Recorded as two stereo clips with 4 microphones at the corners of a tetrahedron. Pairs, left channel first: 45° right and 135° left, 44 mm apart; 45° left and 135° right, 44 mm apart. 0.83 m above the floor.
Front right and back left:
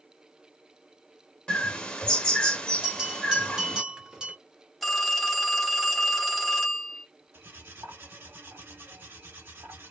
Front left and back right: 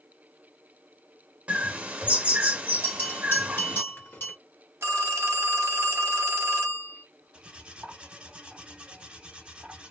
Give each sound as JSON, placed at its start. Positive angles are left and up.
{"t": 1.5, "sound": "a bird", "azimuth_deg": -100, "distance_m": 0.6}
{"t": 2.8, "sound": "a bell", "azimuth_deg": 60, "distance_m": 1.1}
{"t": 4.8, "sound": "a phone ringing", "azimuth_deg": -135, "distance_m": 0.7}
{"t": 7.3, "sound": "cutlery clinking", "azimuth_deg": 160, "distance_m": 1.2}